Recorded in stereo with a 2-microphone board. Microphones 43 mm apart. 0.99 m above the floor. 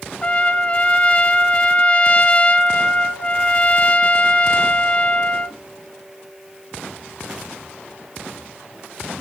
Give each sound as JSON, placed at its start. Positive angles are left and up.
{"t": 0.2, "sound": "a trumpet", "side_deg": 30, "distance_m": 0.6}